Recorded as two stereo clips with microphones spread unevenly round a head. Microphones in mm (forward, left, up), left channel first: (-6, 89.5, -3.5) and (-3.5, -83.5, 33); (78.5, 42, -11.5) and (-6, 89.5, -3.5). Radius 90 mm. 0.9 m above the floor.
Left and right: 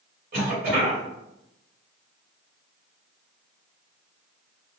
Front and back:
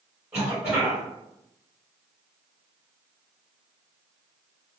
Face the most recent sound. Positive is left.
turn(degrees=-130)